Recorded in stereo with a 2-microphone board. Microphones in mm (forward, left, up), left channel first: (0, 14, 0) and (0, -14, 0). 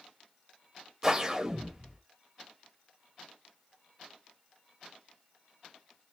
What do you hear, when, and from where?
1.0 s a whoosh: 20° right (ahead or behind), 1.8 m